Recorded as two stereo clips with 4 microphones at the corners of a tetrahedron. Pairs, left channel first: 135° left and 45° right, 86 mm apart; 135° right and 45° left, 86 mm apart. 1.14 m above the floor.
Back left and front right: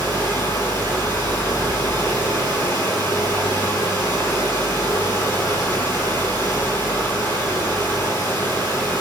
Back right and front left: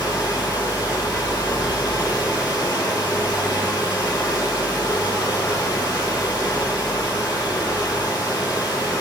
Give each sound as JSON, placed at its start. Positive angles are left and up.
{"t": 0.0, "sound": "running water", "azimuth_deg": -170, "distance_m": 4.0}